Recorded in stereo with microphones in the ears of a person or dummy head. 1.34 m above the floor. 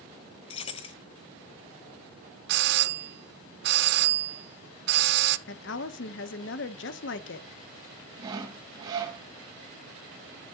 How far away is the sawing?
About 2 m.